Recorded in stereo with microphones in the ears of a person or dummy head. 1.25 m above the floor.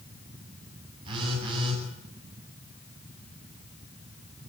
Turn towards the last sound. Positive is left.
turn(degrees=-35)  # may be behind; listen again after turning